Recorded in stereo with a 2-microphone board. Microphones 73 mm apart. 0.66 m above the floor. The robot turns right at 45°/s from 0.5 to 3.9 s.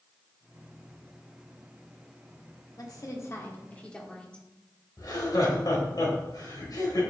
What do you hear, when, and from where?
2.8 s a woman speaking: 110° left, 1.4 m; by 4.5 s 160° left, 1.4 m
5.0 s laughter: 60° left (ahead or behind), 2.5 m